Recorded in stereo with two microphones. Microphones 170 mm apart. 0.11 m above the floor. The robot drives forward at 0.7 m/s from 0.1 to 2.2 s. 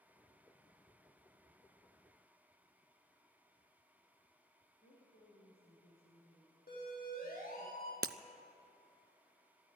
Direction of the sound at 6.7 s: 65° left (ahead or behind).